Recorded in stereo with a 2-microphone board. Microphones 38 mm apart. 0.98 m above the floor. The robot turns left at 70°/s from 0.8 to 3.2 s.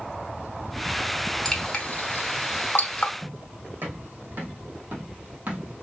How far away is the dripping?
About 0.9 m.